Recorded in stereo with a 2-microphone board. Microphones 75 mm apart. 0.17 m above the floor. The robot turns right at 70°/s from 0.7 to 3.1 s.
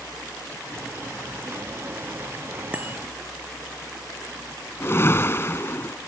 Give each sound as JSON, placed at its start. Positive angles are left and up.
{"t": 2.7, "sound": "a bicycle bell", "side_deg": -15}
{"t": 4.8, "sound": "a whoosh", "side_deg": 35}